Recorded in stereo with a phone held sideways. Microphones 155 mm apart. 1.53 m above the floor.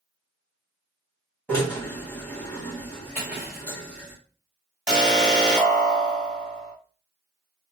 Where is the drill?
10° left (ahead or behind), 2.5 m.